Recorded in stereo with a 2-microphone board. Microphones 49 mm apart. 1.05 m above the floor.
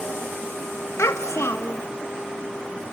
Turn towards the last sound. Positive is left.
turn(degrees=75)  # may be behind; listen again after turning